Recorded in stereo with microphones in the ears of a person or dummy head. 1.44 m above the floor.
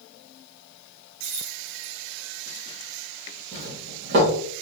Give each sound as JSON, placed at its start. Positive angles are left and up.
{"t": 1.2, "sound": "keys jangling", "side_deg": -35, "distance_m": 0.9}
{"t": 3.5, "sound": "a doorbell", "side_deg": -50, "distance_m": 1.3}